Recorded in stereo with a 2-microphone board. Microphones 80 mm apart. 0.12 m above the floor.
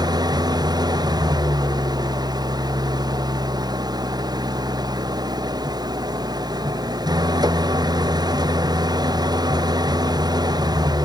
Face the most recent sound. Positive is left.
turn(degrees=-55)  # may be behind; listen again after turning